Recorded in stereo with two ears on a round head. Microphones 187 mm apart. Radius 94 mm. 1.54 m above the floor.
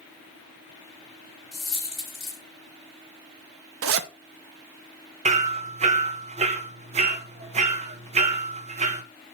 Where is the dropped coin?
Centre (ahead or behind), 3 m.